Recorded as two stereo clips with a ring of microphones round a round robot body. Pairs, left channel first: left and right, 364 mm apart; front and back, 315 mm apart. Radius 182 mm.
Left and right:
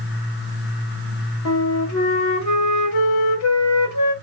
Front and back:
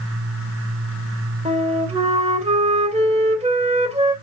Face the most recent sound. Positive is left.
turn(degrees=115)